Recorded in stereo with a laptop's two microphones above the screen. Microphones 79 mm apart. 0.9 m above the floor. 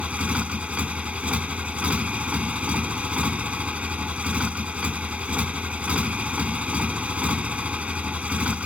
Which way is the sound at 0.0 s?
15° right (ahead or behind).